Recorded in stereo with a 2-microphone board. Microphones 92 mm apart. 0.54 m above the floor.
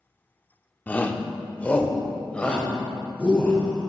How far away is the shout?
About 0.9 m.